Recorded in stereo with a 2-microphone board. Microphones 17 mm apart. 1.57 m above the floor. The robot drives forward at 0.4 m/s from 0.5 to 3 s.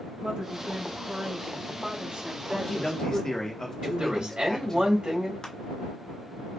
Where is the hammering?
I don't hear hammering.